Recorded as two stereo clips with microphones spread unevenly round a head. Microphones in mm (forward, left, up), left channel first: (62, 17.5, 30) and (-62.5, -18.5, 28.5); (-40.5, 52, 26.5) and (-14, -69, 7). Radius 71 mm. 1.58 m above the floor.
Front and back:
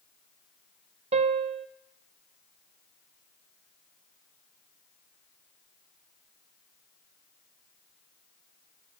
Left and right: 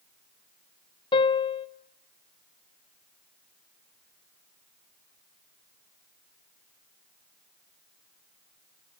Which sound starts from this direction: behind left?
A piano, at 1.1 s.